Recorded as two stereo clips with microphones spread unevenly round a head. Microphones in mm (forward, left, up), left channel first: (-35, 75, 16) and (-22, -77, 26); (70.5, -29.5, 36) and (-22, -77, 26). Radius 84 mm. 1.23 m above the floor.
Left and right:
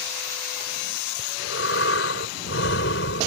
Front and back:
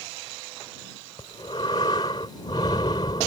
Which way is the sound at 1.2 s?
90° left.